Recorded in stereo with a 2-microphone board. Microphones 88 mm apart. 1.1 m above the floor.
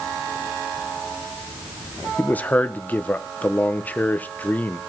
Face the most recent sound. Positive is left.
turn(degrees=20)  # may be behind; listen again after turning